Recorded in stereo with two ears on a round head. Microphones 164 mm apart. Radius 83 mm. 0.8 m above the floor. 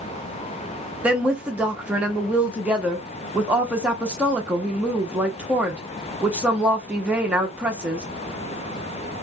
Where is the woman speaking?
5° right (ahead or behind), 0.6 m.